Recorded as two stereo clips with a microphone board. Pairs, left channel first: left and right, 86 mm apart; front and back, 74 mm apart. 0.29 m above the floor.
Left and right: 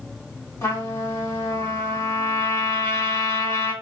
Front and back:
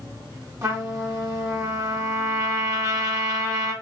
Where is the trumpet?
140° left, 3 m.